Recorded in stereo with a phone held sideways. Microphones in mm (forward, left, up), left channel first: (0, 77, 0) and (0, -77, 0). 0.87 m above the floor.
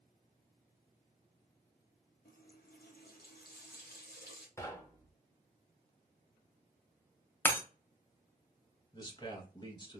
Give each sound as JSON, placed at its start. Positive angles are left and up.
{"t": 2.2, "sound": "a running tap", "side_deg": 85, "distance_m": 0.7}
{"t": 4.6, "sound": "knocking", "side_deg": 20, "distance_m": 0.6}
{"t": 7.5, "sound": "breaking glass", "side_deg": 15, "distance_m": 0.5}
{"t": 8.9, "sound": "a man speaking", "side_deg": 30, "distance_m": 0.7}